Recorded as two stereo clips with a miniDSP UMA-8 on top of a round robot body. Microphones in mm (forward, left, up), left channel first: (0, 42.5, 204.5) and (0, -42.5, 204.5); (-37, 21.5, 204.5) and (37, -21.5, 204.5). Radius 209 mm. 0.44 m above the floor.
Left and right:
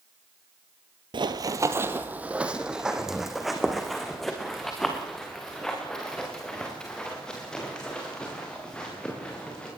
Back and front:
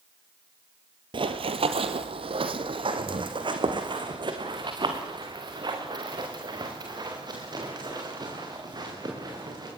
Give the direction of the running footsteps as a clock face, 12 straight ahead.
2 o'clock.